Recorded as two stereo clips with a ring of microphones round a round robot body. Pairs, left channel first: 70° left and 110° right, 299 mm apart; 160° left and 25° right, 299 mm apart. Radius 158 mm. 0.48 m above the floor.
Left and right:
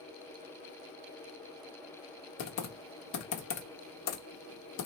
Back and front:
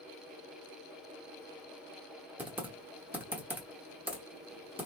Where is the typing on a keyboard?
60° left, 0.9 m.